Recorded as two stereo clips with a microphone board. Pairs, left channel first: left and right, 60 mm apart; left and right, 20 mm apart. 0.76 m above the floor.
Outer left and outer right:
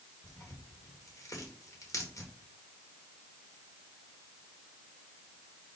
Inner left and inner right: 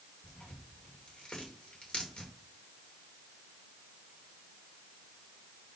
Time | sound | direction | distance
0.2 | tearing paper | 65° left (ahead or behind) | 2.5 m